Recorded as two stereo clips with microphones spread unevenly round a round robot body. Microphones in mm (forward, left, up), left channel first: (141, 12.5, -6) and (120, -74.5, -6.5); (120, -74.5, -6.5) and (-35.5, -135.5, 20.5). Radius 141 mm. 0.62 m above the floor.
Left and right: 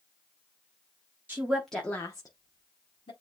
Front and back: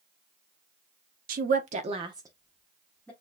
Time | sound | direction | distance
1.3 | a woman speaking | 170° right | 0.7 m